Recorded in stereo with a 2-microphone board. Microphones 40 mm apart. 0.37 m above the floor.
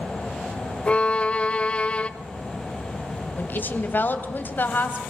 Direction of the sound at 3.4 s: 50° left (ahead or behind).